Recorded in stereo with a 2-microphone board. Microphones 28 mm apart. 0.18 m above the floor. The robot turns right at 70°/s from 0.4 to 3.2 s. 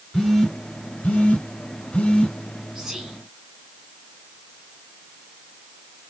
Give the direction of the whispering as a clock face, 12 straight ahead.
5 o'clock.